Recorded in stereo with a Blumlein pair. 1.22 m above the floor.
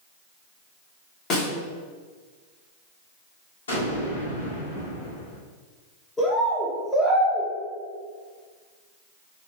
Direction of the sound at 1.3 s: 35° left.